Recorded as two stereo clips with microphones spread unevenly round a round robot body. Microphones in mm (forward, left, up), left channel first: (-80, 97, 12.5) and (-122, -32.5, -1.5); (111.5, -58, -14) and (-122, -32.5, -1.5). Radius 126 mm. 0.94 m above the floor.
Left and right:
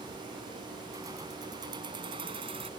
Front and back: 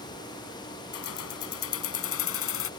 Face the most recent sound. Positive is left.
turn(degrees=-40)